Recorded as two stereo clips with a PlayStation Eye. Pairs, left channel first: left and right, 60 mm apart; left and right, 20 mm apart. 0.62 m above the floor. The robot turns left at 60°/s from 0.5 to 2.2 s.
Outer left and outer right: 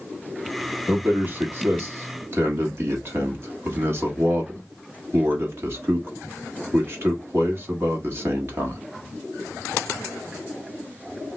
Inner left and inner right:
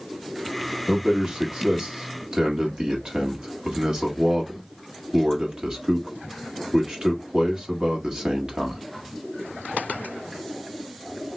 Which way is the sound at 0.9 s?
20° right (ahead or behind).